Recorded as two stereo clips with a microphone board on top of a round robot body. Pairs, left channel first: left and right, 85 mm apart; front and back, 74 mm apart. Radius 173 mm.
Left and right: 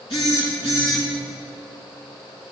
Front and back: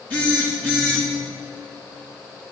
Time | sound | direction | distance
0.1 | a phone buzzing | 65° left | 4 m